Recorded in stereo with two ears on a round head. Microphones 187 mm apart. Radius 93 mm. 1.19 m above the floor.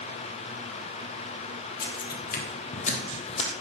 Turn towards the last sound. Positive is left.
turn(degrees=30)  # may be behind; listen again after turning